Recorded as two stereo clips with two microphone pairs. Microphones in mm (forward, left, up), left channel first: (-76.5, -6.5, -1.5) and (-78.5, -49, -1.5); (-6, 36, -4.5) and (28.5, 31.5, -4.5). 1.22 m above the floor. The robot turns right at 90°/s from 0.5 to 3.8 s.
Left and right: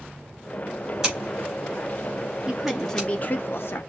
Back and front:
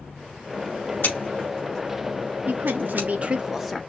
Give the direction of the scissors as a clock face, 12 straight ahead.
6 o'clock.